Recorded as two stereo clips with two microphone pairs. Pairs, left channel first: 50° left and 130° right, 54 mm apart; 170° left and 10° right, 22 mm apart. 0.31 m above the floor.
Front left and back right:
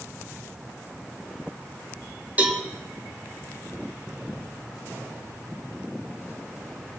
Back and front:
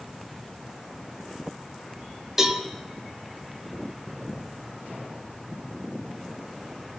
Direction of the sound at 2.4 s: 75° right.